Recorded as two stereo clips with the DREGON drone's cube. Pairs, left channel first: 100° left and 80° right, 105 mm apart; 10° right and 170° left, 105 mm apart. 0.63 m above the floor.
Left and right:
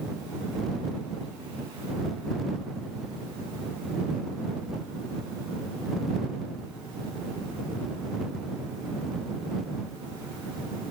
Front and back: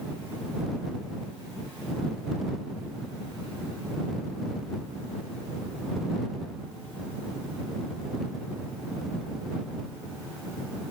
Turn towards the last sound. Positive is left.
No sound to turn to.